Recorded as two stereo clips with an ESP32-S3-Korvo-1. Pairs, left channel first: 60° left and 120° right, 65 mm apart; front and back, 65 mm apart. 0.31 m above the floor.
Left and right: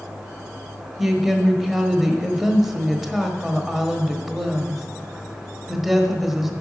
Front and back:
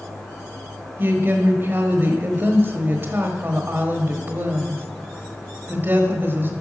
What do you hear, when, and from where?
1.0 s a woman speaking: 155° left, 1.1 m